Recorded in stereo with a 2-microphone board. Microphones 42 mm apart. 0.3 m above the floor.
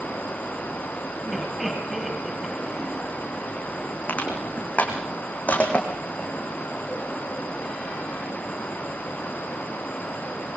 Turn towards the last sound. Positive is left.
turn(degrees=35)  # may be behind; listen again after turning